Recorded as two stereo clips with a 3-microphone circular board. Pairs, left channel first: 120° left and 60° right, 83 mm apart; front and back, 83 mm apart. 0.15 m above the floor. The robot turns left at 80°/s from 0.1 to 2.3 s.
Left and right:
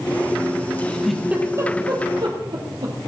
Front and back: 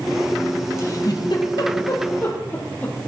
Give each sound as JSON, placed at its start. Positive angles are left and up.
{"t": 0.8, "sound": "a giggle", "azimuth_deg": 55, "distance_m": 3.5}